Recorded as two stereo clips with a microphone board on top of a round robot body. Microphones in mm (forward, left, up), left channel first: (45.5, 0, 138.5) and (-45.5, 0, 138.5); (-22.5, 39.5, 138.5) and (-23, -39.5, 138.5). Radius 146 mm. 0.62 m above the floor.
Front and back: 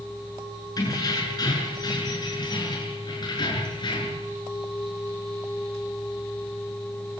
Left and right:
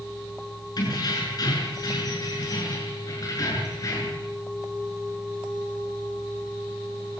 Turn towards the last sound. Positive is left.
turn(degrees=40)